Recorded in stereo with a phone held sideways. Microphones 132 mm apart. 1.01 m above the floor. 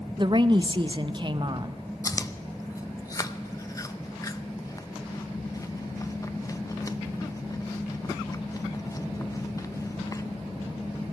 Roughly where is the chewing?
Left.